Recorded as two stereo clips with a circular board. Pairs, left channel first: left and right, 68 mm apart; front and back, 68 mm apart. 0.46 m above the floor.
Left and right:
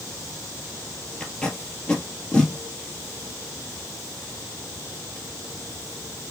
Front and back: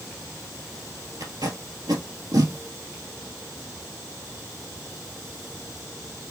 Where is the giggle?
No giggle in this recording.